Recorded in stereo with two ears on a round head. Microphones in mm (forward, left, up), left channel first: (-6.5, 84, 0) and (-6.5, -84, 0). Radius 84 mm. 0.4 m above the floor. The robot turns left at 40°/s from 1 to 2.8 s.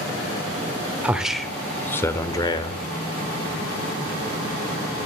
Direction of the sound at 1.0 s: 165° right.